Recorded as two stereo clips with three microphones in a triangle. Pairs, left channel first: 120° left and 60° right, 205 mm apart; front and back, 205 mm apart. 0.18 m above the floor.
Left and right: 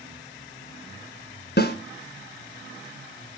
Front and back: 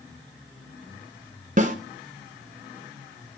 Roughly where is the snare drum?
Behind left.